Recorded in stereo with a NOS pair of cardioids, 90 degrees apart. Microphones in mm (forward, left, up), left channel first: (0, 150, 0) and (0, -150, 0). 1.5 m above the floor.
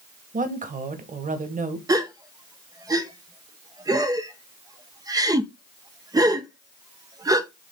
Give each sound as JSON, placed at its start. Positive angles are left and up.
{"t": 0.3, "sound": "a woman speaking", "azimuth_deg": -25, "distance_m": 1.9}
{"t": 1.9, "sound": "a gasp", "azimuth_deg": -10, "distance_m": 1.0}